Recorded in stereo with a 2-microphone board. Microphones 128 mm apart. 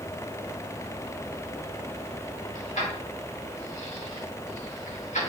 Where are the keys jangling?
80° left, 1.9 m; by 5.3 s 85° left, 3.5 m.